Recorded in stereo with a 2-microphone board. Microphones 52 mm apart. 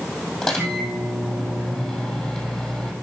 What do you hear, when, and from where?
0.4 s a microwave: 15° left (ahead or behind), 3 m